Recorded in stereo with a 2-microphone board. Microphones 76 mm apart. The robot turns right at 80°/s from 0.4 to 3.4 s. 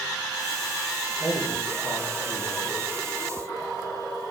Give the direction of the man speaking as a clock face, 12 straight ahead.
7 o'clock.